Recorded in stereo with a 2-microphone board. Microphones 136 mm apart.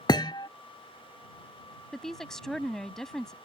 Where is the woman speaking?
5° left (ahead or behind).